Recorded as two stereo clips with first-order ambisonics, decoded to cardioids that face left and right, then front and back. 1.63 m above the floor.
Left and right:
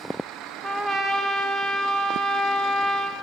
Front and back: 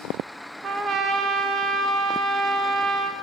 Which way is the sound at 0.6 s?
145° right.